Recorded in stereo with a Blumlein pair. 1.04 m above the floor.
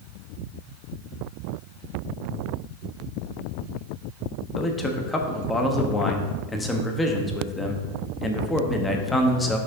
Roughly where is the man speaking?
Ahead.